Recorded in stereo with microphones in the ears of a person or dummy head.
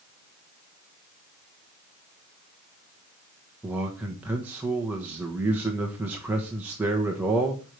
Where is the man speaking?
10° right (ahead or behind), 1.4 m.